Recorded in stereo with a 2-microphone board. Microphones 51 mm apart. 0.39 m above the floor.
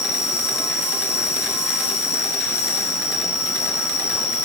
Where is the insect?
70° left (ahead or behind), 1.6 m.